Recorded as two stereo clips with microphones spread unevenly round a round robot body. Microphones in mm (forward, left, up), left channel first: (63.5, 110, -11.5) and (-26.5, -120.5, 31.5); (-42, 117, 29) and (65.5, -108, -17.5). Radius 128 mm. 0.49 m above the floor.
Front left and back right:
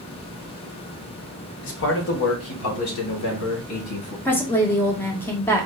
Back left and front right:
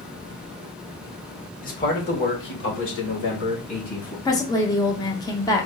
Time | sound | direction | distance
1.6 | a man speaking | 55° left | 1.1 m
4.2 | a woman speaking | 35° left | 0.7 m